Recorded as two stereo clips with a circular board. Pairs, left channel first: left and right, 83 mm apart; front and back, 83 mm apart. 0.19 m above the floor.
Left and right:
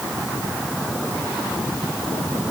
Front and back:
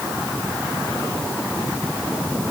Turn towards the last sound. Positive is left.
No sound to turn to.